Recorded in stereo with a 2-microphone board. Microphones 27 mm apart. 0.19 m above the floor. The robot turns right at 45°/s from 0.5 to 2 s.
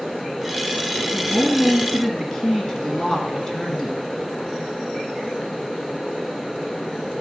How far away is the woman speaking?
About 2.5 m.